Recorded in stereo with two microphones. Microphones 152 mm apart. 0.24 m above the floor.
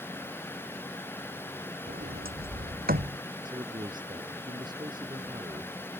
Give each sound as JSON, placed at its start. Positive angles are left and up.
{"t": 1.9, "sound": "a sliding door", "side_deg": -75}
{"t": 3.5, "sound": "a man speaking", "side_deg": -30}